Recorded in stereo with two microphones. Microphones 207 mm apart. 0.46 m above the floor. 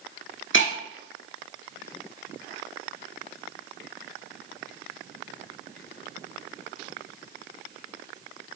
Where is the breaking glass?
70° left (ahead or behind), 1.5 m.